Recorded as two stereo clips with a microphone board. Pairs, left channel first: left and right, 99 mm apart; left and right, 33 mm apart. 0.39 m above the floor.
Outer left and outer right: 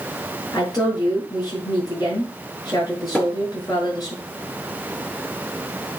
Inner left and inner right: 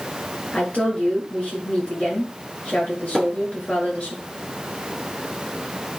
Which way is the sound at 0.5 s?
45° left (ahead or behind).